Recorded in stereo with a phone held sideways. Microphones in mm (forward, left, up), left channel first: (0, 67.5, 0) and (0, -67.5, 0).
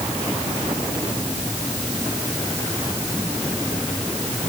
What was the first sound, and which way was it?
Only background noise.